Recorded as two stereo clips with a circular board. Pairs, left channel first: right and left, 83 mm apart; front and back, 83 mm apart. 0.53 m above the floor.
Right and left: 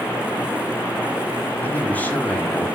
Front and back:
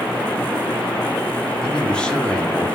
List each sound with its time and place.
1.6 s a man speaking: 60° right, 1.3 m